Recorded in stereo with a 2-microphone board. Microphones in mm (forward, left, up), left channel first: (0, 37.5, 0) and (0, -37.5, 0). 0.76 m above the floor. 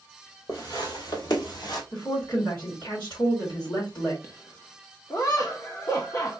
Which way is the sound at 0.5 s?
55° left (ahead or behind).